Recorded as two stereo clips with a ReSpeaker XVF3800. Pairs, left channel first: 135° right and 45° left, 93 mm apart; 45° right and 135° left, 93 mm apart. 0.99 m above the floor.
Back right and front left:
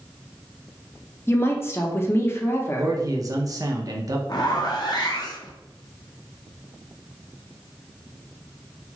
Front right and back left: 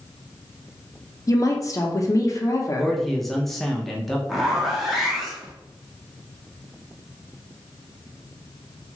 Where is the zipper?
140° right, 0.6 m.